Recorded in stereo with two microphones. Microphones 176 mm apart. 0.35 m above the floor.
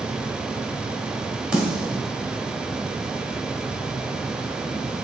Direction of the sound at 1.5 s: 5° right (ahead or behind).